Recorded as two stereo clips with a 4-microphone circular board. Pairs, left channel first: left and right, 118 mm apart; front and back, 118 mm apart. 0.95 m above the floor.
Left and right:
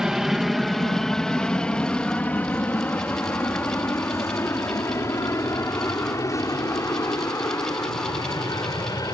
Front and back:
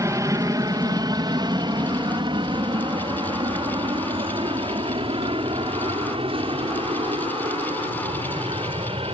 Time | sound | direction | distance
0.0 | an aircraft | 170° right | ?